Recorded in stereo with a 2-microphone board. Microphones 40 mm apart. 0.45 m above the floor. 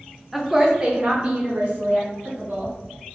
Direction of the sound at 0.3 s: Centre (ahead or behind).